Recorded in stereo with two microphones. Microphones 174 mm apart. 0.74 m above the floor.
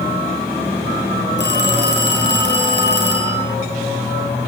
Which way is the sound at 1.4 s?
80° left.